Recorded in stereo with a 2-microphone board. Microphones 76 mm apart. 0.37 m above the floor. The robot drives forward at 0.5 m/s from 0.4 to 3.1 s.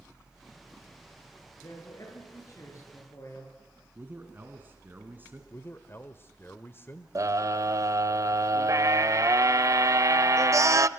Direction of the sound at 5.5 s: 30° left (ahead or behind).